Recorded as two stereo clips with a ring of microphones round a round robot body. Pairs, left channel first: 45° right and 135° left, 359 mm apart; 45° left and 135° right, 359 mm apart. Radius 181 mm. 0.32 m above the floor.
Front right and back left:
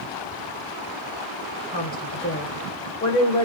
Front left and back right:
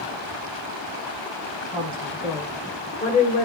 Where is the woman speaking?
85° right, 1.3 m; by 3.5 s 20° left, 1.3 m.